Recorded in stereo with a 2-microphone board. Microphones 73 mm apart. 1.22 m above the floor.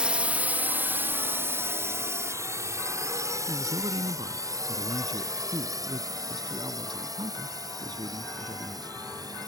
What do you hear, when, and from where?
0.0 s a drone: 15° right (ahead or behind); by 9.5 s 60° right (ahead or behind)
3.5 s a man speaking: 85° right